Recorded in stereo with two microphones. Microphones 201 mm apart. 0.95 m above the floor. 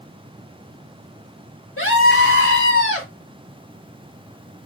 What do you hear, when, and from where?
1.8 s a scream: 80° left, 4.5 m